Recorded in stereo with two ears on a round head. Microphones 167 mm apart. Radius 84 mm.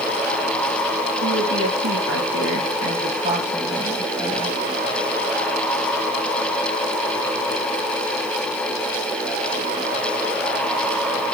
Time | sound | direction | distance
1.2 | a woman speaking | 85° right | 3.5 m